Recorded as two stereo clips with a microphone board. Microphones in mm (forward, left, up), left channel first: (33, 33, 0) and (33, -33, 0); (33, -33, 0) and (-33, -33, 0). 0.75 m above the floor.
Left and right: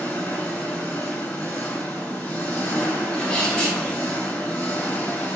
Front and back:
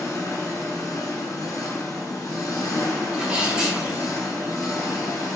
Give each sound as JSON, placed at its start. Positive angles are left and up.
{"t": 0.0, "sound": "an engine running", "azimuth_deg": 20, "distance_m": 1.1}
{"t": 3.1, "sound": "a sneeze", "azimuth_deg": 130, "distance_m": 0.9}